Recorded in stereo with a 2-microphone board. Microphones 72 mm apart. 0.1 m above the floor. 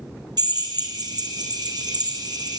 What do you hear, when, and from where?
0.4 s a drill: 70° right (ahead or behind), 3.5 m